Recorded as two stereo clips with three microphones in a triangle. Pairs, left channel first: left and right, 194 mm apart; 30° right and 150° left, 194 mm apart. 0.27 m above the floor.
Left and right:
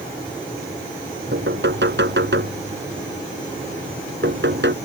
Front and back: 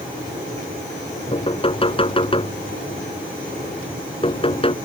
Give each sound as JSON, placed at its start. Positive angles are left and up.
{"t": 1.3, "sound": "knocking", "azimuth_deg": -90}